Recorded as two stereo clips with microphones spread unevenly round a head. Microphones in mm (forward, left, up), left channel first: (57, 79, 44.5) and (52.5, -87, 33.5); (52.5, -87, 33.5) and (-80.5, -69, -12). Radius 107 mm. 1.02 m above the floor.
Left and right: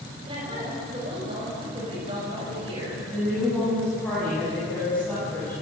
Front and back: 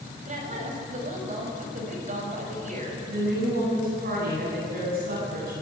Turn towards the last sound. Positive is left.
turn(degrees=175)